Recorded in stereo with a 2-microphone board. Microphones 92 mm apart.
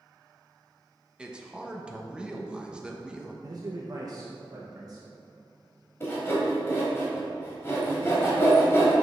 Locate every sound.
1.2 s a man speaking: 10° right (ahead or behind), 0.7 m
3.4 s a man speaking: 45° right (ahead or behind), 0.6 m
6.0 s sawing: 30° left (ahead or behind), 1.8 m